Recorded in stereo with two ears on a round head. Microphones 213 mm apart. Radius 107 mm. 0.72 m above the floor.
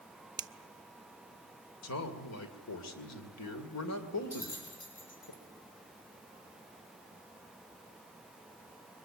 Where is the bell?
40° left (ahead or behind), 6.5 m.